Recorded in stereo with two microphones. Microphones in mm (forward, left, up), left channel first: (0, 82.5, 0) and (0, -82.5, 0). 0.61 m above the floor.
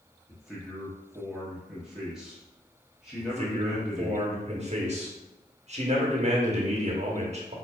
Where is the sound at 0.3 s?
5° right (ahead or behind), 0.9 m.